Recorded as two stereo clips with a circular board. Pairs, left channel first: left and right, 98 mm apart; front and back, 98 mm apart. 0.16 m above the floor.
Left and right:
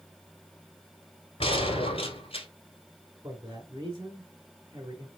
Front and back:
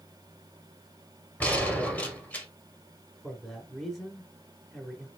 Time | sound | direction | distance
1.4 | a gunshot | 75° left | 1.6 m
3.2 | a man speaking | 85° right | 1.3 m